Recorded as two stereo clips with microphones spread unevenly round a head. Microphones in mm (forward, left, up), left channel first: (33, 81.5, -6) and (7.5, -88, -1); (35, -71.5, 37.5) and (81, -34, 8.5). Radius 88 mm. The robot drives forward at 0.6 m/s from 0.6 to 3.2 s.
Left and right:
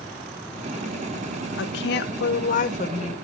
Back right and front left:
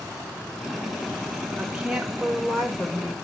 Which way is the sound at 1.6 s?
95° left.